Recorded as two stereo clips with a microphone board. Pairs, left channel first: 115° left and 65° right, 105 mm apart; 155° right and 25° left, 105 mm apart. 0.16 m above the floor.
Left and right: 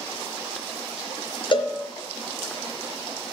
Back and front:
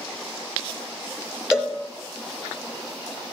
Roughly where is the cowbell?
Left.